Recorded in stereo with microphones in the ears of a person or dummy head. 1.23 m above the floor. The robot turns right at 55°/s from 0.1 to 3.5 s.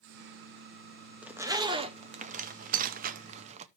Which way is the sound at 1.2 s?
Centre (ahead or behind).